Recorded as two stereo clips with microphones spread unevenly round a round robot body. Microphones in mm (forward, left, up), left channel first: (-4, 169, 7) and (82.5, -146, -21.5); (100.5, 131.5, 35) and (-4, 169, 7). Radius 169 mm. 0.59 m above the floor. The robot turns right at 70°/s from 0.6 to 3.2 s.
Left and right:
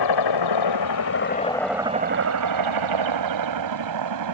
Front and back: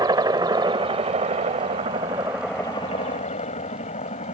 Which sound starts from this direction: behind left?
A helicopter, at 0.0 s.